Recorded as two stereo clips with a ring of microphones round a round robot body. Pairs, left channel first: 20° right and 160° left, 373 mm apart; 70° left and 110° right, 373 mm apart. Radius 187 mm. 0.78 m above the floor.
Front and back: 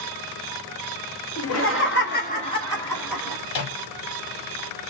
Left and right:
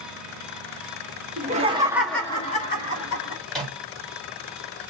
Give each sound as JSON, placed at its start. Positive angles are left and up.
{"t": 1.4, "sound": "laughter", "azimuth_deg": -55, "distance_m": 1.0}
{"t": 3.5, "sound": "a microwave", "azimuth_deg": -20, "distance_m": 1.1}